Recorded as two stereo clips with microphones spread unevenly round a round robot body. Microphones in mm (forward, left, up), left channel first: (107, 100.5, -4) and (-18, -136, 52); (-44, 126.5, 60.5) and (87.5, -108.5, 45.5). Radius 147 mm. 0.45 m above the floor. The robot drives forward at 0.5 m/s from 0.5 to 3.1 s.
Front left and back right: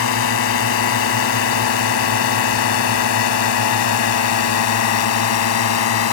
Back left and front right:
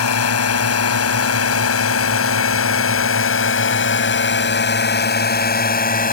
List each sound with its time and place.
0.0 s a drone: 95° left; by 6.1 s 60° left